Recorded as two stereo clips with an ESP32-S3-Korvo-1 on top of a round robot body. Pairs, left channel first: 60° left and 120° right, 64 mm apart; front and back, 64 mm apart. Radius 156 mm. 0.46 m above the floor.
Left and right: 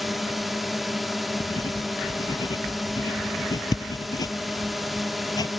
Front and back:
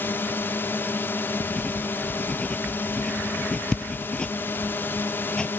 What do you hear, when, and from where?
0.0 s a drone: 30° right
1.4 s writing: 75° left